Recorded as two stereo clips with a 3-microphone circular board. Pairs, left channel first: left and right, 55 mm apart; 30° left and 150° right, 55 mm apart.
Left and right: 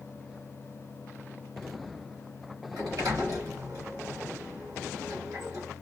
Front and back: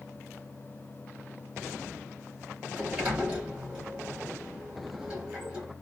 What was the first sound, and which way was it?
A sliding door, 80° right.